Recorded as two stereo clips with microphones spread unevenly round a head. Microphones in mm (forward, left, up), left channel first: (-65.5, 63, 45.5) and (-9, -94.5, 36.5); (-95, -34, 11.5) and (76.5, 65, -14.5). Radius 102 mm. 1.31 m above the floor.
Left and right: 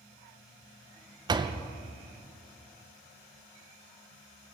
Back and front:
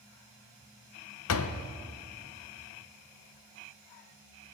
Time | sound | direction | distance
1.3 | a door slam | 135° right | 0.6 m